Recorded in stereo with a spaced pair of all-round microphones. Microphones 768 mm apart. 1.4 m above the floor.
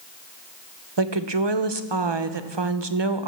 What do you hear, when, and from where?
1.0 s a woman speaking: 35° right (ahead or behind), 0.8 m